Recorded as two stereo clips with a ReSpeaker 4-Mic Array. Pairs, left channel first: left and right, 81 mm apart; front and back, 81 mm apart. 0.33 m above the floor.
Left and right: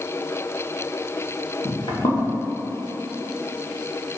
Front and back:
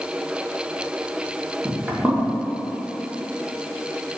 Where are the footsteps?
100° left, 1.9 m.